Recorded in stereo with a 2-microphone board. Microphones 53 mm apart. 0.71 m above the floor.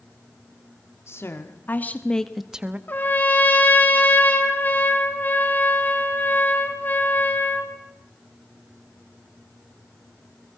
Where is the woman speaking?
55° left (ahead or behind), 2 m; by 2.8 s 25° right (ahead or behind), 1.2 m.